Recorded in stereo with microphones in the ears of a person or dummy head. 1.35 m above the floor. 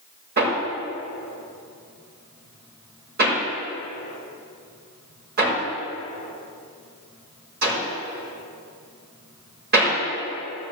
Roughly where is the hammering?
Right.